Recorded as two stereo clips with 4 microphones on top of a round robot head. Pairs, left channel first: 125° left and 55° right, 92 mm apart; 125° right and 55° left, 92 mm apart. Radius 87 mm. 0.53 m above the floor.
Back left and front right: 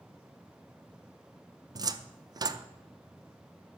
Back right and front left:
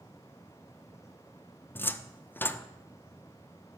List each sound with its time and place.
1.8 s a cupboard door: 65° right, 0.6 m